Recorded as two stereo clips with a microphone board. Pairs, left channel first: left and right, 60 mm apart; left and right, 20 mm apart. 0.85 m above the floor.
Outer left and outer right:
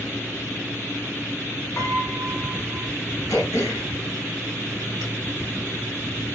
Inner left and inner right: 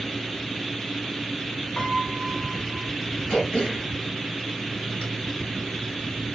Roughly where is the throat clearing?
Left.